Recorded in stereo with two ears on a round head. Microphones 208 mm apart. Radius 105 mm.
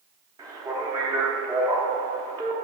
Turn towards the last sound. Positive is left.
turn(degrees=-15)  # may be behind; listen again after turning